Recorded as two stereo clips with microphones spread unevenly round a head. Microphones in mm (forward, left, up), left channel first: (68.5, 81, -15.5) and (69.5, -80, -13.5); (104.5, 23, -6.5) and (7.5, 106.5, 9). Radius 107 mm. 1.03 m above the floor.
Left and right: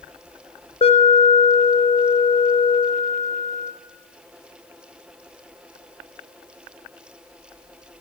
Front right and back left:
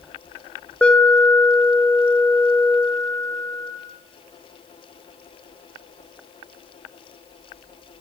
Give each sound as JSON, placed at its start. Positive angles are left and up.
{"t": 0.8, "sound": "an alarm", "azimuth_deg": 40, "distance_m": 4.0}